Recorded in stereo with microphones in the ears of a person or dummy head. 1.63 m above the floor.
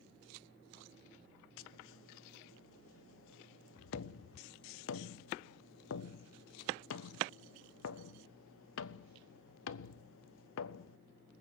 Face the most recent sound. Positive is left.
turn(degrees=70)  # may be behind; listen again after turning